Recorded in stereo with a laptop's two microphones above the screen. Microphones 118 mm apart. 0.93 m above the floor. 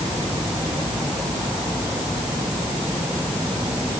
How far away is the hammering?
No hammering in this recording.